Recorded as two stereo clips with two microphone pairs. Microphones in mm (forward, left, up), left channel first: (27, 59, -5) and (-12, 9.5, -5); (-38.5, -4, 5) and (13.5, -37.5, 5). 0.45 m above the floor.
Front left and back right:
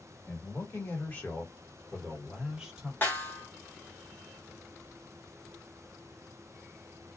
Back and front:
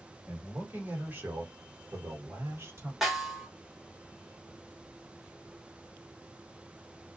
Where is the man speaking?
20° left, 1.7 m; by 2.9 s 60° right, 1.4 m.